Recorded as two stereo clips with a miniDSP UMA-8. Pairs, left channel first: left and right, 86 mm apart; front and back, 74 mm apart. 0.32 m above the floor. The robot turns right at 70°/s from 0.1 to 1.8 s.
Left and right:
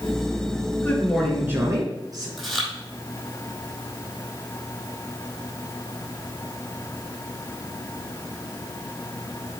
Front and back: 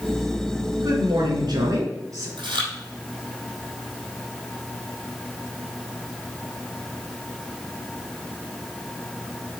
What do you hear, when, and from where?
0.8 s a man speaking: 150° left, 4 m; by 2.3 s 135° right, 4 m
2.4 s chewing: straight behind, 3.5 m